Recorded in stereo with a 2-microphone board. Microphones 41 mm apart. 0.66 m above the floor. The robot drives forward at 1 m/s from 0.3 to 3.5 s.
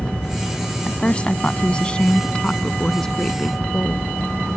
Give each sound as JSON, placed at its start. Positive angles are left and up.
{"t": 0.8, "sound": "a woman speaking", "side_deg": 30}